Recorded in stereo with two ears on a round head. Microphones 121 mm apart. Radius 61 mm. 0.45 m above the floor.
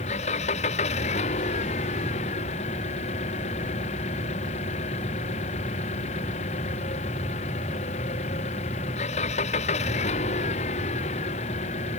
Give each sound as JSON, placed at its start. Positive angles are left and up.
{"t": 0.0, "sound": "an engine running", "side_deg": 55}